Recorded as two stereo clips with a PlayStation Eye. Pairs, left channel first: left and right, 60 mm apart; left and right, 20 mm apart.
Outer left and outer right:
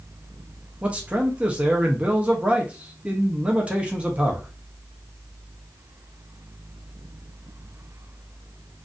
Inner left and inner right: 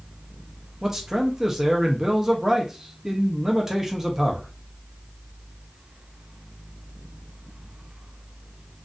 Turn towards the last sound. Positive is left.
turn(degrees=-20)  # may be behind; listen again after turning